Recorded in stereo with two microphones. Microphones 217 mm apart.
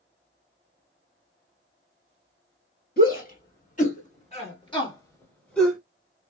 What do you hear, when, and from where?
3.0 s a shout: 45° left (ahead or behind), 2 m; by 5.8 s centre (ahead or behind), 1.4 m